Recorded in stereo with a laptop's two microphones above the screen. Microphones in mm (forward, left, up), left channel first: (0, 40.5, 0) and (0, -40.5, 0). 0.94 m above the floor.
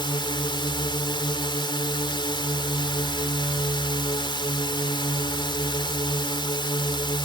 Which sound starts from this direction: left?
A drone, at 0.0 s.